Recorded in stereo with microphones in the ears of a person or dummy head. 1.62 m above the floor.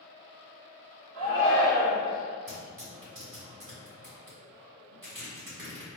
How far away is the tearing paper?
About 1.7 m.